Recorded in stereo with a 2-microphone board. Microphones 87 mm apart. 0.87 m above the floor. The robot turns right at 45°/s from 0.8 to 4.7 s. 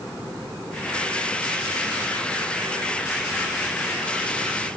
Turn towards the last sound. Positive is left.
No sound to turn to.